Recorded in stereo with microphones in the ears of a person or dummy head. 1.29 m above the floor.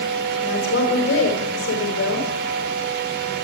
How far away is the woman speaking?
About 5 m.